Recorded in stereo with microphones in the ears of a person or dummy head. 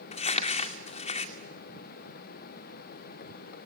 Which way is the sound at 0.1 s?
35° left (ahead or behind).